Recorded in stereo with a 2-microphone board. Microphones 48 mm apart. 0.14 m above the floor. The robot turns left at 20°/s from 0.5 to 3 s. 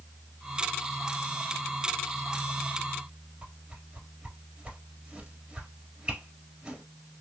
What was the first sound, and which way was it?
A whoosh, 20° right (ahead or behind).